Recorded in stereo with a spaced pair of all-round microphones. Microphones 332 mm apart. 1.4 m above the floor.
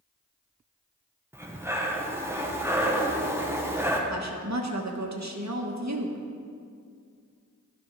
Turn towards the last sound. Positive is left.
turn(degrees=-55)  # may be behind; listen again after turning